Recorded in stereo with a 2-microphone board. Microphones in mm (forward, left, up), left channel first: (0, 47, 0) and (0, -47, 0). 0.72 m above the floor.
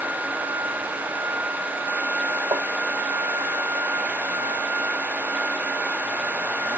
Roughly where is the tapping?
Right.